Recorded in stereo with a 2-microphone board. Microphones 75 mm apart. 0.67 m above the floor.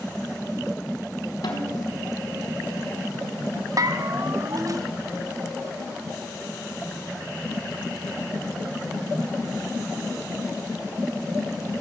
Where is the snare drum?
55° left (ahead or behind), 5 m.